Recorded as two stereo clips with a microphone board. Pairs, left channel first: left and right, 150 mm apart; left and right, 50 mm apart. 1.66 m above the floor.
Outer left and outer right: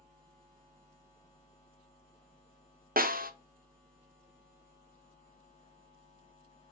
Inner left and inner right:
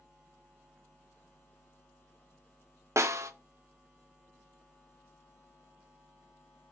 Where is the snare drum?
70° right (ahead or behind), 0.9 m.